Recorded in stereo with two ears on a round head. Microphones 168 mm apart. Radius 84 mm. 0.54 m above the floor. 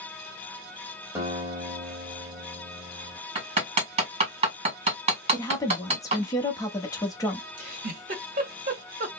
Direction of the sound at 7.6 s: 45° right (ahead or behind).